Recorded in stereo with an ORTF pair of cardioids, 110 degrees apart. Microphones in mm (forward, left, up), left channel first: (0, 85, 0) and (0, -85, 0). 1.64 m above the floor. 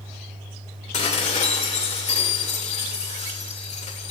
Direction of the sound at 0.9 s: 45° left.